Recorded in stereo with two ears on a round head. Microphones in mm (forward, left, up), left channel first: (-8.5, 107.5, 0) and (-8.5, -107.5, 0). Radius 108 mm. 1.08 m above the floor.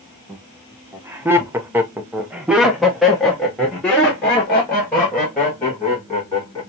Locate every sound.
0.3 s laughter: 10° right (ahead or behind), 1.1 m; by 6.6 s 5° left (ahead or behind), 2.5 m